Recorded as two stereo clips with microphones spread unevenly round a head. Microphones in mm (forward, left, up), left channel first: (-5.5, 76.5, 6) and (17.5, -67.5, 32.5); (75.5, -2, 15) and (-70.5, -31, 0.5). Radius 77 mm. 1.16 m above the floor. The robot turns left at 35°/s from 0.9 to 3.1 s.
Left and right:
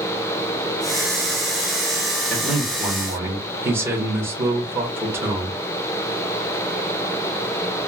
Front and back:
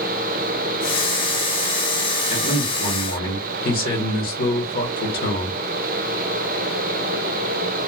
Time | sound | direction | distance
2.3 | a man speaking | 25° left | 1.1 m